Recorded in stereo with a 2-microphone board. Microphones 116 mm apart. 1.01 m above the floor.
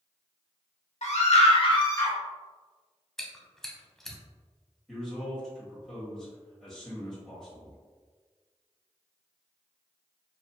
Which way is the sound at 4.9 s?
5° left (ahead or behind).